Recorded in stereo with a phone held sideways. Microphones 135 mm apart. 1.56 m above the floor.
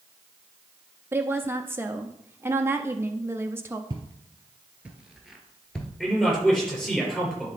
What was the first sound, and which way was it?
A woman speaking, 15° right (ahead or behind).